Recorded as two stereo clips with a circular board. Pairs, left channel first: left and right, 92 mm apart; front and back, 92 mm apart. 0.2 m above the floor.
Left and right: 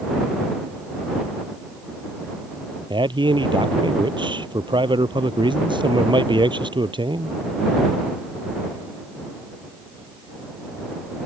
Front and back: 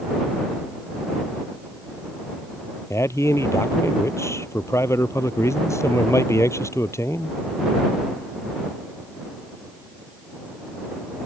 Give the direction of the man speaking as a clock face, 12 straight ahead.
2 o'clock.